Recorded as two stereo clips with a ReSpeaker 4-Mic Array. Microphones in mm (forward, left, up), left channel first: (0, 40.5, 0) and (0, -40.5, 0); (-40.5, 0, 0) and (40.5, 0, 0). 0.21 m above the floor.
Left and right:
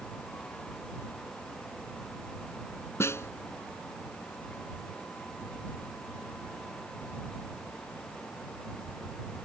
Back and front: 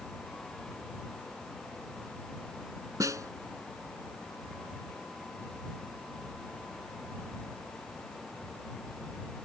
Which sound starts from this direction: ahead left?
A snare drum, at 3.0 s.